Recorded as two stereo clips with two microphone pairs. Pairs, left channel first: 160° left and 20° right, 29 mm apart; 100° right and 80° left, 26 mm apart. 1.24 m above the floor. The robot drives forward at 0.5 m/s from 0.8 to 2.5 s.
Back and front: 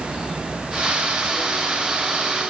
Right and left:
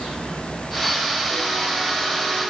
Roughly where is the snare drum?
No snare drum in this recording.